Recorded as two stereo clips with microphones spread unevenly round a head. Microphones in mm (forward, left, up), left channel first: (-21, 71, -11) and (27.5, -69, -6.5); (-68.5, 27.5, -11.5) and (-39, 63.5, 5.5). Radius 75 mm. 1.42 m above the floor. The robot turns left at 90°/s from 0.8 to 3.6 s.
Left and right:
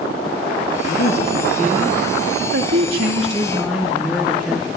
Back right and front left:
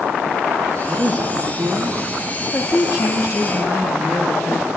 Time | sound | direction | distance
0.8 | a woman speaking | 90° left | 2.5 m